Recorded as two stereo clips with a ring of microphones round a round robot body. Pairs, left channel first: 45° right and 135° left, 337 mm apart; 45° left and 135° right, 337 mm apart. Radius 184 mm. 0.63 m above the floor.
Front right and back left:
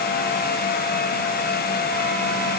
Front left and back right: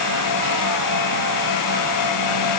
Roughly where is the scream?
No scream in this recording.